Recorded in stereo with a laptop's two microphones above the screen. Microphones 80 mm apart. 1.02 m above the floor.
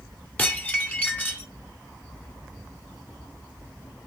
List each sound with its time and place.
0.4 s dishes clattering: 20° left (ahead or behind), 2.0 m